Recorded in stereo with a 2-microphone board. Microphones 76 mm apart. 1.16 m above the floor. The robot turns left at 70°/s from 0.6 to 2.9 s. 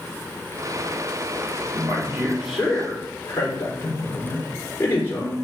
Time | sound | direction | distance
1.7 | a man speaking | 125° right | 4 m